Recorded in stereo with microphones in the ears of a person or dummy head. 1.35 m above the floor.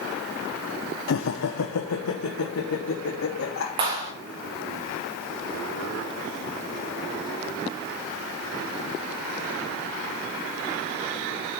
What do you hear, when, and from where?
1.1 s laughter: 55° left (ahead or behind), 0.7 m; by 3.7 s 75° left (ahead or behind), 3 m
3.8 s a clap: 25° right (ahead or behind), 3 m